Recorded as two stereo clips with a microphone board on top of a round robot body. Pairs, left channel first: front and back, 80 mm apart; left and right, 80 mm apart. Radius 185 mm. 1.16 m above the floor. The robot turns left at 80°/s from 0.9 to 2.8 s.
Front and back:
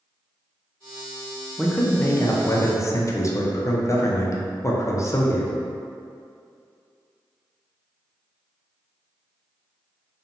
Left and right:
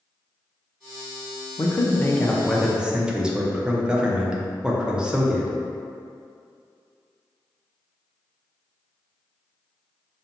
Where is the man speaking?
80° left, 0.6 m; by 5.5 s 15° right, 0.6 m.